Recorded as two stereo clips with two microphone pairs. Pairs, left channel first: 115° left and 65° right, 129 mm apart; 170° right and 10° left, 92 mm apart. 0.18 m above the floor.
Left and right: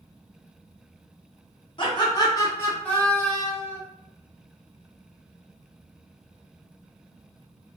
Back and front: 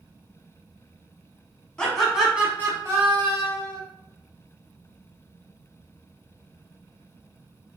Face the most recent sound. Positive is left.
turn(degrees=20)